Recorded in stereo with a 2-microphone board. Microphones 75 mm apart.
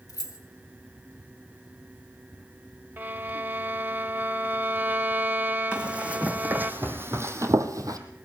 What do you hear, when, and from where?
0.1 s keys jangling: 55° left (ahead or behind), 1.7 m
3.0 s a violin: 30° right (ahead or behind), 0.7 m
5.7 s running footsteps: 15° right (ahead or behind), 2.5 m; by 8.0 s 55° right (ahead or behind), 1.4 m